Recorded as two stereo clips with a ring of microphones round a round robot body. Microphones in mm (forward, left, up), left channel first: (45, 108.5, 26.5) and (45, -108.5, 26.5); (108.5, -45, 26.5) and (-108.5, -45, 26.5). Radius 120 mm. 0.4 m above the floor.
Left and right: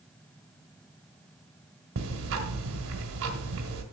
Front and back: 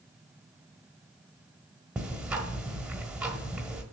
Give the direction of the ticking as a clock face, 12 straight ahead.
3 o'clock.